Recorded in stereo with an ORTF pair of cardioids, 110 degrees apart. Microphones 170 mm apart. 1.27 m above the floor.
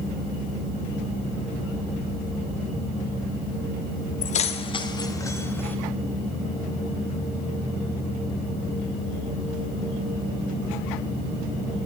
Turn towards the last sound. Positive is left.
turn(degrees=10)